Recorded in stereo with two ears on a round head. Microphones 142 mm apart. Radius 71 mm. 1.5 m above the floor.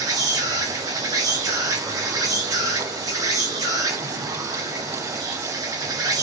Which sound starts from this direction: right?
An insect, at 0.0 s.